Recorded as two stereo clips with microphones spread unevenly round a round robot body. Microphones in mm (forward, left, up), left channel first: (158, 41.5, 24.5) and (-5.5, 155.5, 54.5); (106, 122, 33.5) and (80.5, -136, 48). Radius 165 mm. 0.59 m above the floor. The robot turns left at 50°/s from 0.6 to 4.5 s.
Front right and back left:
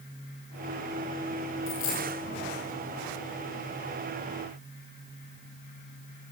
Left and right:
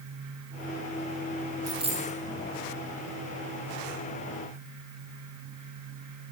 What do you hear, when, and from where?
1.7 s a dropped coin: 20° right, 8.5 m; by 2.2 s 45° right, 8.5 m